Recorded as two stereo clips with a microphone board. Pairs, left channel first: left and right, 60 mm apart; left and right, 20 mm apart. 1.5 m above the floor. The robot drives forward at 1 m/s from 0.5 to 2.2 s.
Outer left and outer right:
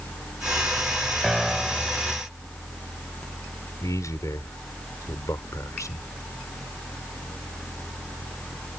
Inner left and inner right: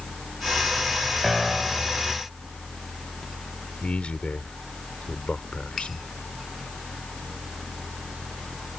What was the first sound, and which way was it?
A piano, centre (ahead or behind).